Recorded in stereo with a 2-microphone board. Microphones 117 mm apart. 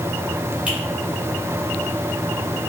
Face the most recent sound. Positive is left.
turn(degrees=-10)  # may be behind; listen again after turning